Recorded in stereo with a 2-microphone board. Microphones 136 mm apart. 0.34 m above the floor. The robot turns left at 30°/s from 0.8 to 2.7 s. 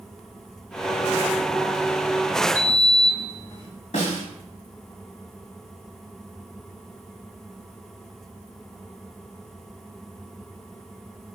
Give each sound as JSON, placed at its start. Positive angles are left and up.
{"t": 2.5, "sound": "a sliding door", "side_deg": 25, "distance_m": 1.4}
{"t": 3.9, "sound": "a snare drum", "side_deg": 65, "distance_m": 1.3}